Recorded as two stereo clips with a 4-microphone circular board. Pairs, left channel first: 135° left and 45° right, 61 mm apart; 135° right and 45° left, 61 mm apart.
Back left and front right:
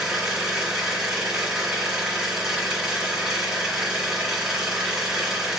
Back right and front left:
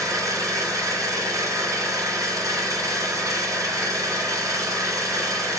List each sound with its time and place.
0.0 s an engine running: 35° left, 3.5 m